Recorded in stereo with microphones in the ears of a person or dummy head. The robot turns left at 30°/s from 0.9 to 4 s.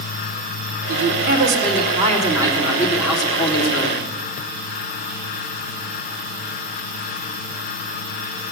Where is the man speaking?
110° right, 3 m; by 4.0 s 155° left, 3 m.